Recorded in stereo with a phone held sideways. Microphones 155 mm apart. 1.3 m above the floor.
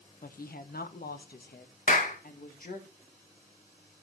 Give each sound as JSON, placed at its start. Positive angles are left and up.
{"t": 0.2, "sound": "a woman speaking", "side_deg": 65, "distance_m": 0.8}
{"t": 1.9, "sound": "a clap", "side_deg": 60, "distance_m": 1.6}